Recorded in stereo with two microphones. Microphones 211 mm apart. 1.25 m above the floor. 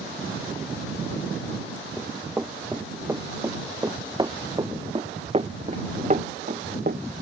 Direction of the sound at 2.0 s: 5° right (ahead or behind).